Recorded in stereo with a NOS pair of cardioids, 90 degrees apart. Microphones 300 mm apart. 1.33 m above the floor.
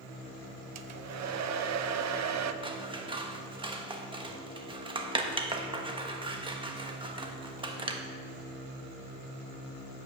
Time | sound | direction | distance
0.8 | a hair dryer | 65° right | 0.8 m
2.6 | scissors | 15° right | 1.2 m